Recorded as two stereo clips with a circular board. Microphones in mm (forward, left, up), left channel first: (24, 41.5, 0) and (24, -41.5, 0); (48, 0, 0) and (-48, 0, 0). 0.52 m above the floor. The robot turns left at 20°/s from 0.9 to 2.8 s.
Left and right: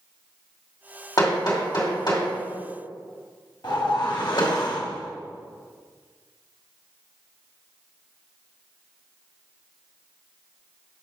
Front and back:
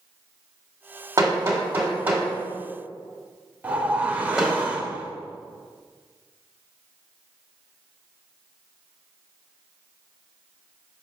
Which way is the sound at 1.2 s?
130° left.